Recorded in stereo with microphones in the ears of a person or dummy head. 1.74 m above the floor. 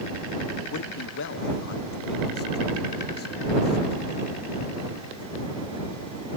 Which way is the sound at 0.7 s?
75° left (ahead or behind).